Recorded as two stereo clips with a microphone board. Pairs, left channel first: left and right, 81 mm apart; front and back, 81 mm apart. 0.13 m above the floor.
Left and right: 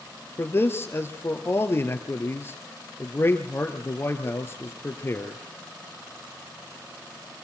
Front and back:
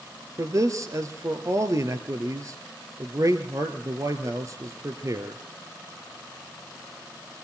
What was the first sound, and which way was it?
A man speaking, 145° left.